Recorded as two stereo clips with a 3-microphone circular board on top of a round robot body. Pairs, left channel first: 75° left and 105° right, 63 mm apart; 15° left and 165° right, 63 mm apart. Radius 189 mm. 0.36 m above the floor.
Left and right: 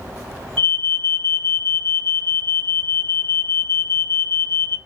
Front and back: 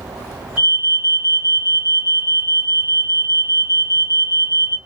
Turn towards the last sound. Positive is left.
turn(degrees=135)